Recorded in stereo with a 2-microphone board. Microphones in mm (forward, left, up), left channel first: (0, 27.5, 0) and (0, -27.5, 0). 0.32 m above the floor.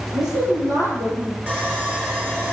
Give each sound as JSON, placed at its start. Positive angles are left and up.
{"t": 0.1, "sound": "a woman speaking", "side_deg": -80, "distance_m": 7.0}
{"t": 1.5, "sound": "sawing", "side_deg": -30, "distance_m": 5.0}